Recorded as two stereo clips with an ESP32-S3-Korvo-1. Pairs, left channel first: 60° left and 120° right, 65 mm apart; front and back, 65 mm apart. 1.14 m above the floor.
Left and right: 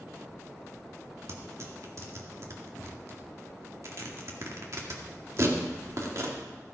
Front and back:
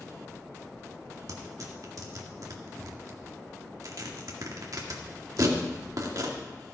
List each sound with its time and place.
1.3 s tearing paper: 155° right, 1.9 m